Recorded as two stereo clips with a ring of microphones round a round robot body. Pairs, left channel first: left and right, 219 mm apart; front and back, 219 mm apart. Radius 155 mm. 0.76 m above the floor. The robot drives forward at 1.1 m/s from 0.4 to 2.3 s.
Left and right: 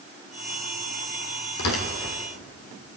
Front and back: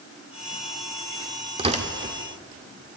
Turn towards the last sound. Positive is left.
turn(degrees=130)